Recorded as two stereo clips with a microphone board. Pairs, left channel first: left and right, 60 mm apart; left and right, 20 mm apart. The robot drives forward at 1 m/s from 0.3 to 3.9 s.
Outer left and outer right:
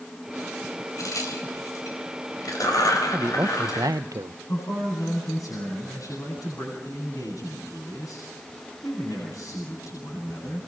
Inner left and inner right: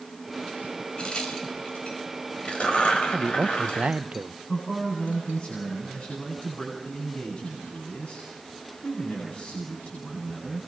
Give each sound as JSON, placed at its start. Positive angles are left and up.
{"t": 1.0, "sound": "a crack", "side_deg": 65, "distance_m": 5.0}
{"t": 3.1, "sound": "a man speaking", "side_deg": -35, "distance_m": 0.8}
{"t": 4.5, "sound": "a man speaking", "side_deg": 70, "distance_m": 8.5}